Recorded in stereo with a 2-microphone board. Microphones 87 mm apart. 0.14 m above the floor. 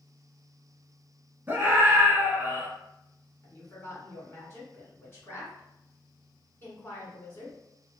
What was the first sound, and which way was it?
A scream, 25° right (ahead or behind).